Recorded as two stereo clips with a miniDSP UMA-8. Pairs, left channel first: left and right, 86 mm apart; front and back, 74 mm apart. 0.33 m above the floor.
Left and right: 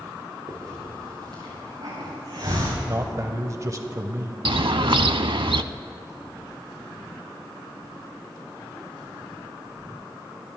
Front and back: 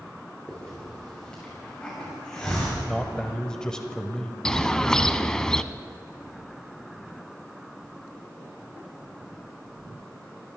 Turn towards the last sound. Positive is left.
turn(degrees=-80)